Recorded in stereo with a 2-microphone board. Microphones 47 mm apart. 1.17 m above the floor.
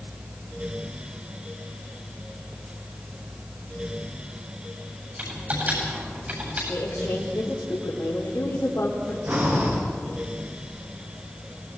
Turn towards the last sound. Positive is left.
turn(degrees=-40)  # may be behind; listen again after turning